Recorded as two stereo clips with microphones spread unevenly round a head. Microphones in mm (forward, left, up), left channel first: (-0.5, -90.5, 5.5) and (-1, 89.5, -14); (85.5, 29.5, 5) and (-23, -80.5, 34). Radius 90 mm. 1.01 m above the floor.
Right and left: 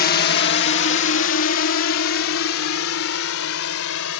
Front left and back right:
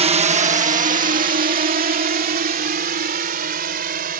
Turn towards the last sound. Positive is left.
turn(degrees=-105)